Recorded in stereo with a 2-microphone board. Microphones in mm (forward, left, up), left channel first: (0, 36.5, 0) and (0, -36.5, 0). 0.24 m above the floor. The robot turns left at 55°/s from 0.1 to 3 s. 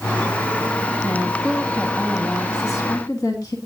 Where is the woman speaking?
155° right, 1.9 m; by 3.5 s 100° left, 1.9 m.